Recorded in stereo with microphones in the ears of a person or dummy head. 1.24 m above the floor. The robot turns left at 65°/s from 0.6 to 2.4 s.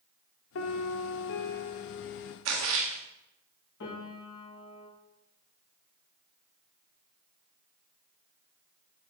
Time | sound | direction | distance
0.6 | a piano | 115° left | 0.8 m
2.5 | a splash | 80° right | 1.5 m
3.8 | a piano | 65° left (ahead or behind) | 3.5 m